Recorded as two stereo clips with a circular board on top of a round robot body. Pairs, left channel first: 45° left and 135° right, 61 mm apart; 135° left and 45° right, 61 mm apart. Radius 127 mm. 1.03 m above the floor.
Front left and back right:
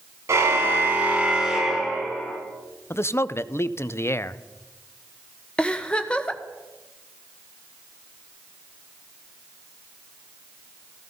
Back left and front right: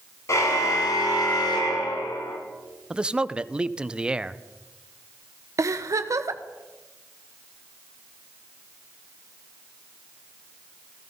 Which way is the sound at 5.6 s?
25° right.